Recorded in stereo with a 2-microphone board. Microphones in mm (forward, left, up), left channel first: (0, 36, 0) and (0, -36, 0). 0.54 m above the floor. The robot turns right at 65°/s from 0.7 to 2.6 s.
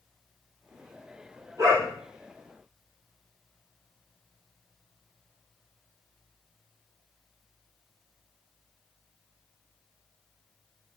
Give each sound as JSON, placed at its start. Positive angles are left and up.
{"t": 1.6, "sound": "a dog barking", "side_deg": -50, "distance_m": 5.5}